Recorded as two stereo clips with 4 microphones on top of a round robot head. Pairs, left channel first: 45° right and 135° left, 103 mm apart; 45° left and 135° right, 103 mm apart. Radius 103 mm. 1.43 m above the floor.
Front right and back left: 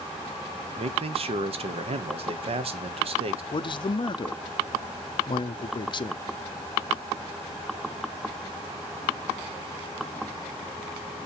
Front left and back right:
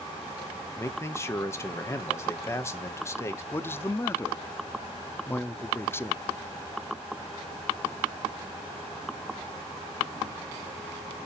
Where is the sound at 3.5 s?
15° right, 0.6 m.